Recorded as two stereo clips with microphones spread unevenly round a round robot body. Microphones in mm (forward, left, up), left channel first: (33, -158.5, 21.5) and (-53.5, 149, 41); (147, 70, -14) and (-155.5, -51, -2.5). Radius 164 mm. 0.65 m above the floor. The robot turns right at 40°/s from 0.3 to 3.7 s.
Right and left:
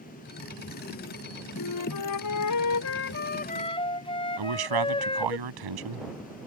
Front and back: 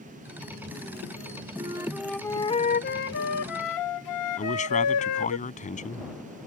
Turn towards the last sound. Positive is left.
turn(degrees=90)